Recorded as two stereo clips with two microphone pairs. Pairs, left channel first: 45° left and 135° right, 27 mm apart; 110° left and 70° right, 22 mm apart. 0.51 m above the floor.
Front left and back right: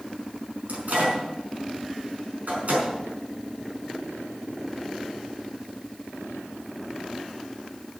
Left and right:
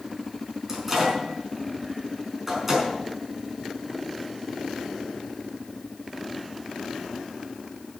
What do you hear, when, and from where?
0.7 s a microwave: 155° right, 5 m